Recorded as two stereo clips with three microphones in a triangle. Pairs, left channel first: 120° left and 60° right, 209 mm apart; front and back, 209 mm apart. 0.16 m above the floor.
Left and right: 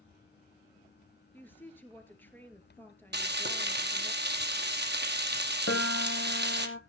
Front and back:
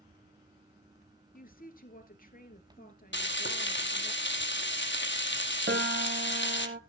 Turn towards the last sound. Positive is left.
turn(degrees=135)